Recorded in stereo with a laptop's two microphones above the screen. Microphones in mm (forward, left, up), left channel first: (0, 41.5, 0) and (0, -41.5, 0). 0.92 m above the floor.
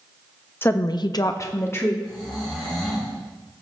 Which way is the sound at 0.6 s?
25° left (ahead or behind).